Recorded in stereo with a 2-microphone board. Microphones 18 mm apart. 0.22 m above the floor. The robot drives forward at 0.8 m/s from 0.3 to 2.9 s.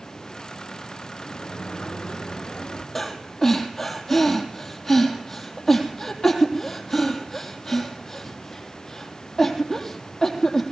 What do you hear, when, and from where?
1.2 s a sliding door: 70° left (ahead or behind), 1.6 m; by 2.9 s 50° left (ahead or behind), 1.9 m
3.0 s breathing: 25° left (ahead or behind), 3 m